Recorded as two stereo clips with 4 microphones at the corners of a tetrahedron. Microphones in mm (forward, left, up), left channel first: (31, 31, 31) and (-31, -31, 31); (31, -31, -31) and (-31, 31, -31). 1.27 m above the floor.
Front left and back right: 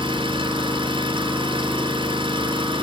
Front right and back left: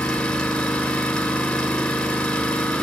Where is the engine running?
130° right, 4.5 m.